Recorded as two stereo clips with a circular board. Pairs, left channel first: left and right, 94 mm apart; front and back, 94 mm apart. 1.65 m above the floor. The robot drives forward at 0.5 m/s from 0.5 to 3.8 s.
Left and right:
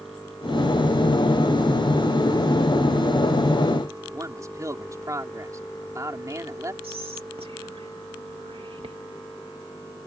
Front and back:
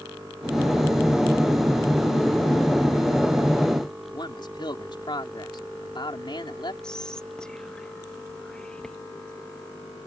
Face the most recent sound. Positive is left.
turn(degrees=-85)